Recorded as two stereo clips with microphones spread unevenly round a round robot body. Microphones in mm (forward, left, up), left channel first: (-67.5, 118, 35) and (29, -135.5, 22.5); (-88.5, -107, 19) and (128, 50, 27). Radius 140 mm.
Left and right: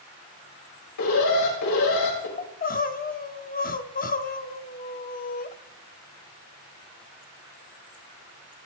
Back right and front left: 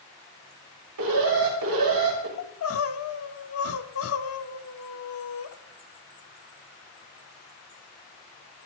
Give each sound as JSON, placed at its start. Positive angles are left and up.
{"t": 1.0, "sound": "an alarm", "azimuth_deg": 80, "distance_m": 6.0}
{"t": 2.4, "sound": "crying", "azimuth_deg": 170, "distance_m": 1.0}